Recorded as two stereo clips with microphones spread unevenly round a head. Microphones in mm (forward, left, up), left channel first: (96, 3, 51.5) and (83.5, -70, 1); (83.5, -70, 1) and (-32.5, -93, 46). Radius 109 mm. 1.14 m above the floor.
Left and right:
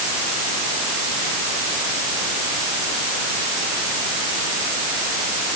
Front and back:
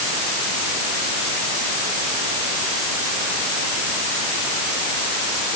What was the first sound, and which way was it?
Only background noise.